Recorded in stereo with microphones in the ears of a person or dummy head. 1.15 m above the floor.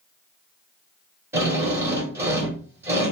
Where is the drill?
15° right (ahead or behind), 1.6 m.